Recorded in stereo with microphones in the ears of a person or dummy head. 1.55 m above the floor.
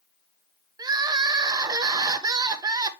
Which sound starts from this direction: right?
Crying, at 0.8 s.